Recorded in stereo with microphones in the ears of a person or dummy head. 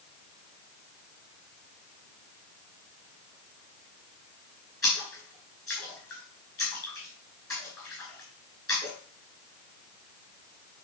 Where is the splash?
20° left (ahead or behind), 4.5 m.